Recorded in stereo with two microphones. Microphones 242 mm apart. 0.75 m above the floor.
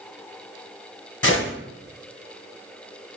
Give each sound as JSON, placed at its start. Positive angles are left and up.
{"t": 1.2, "sound": "a gunshot", "side_deg": 65, "distance_m": 2.5}